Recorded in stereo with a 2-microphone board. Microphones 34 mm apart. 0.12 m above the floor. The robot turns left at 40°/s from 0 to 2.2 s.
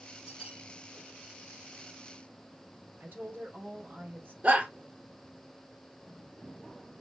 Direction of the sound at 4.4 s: 35° right (ahead or behind).